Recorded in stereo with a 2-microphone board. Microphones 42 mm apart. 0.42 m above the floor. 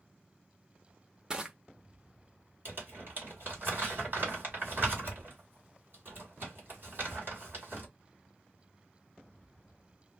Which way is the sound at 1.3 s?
15° right (ahead or behind).